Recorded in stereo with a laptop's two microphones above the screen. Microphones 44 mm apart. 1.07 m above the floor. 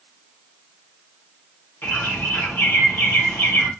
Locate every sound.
1.8 s a bird: 60° left (ahead or behind), 1.1 m